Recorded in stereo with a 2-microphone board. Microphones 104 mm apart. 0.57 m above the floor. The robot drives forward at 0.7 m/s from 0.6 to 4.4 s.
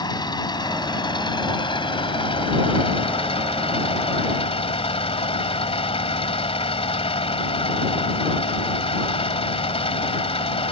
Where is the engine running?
45° left (ahead or behind); by 10.7 s 75° left (ahead or behind).